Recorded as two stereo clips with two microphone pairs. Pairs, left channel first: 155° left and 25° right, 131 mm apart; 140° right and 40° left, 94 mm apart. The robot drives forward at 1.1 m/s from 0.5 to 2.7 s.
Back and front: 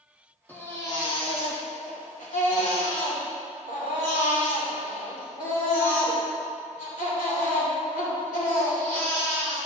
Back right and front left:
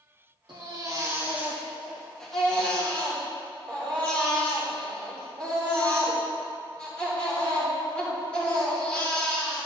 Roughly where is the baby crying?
Left.